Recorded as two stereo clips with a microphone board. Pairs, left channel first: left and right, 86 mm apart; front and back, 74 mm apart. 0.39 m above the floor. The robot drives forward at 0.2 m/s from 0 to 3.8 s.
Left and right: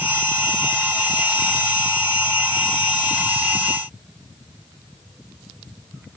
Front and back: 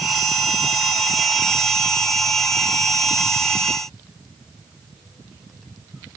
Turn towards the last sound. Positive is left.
No sound to turn to.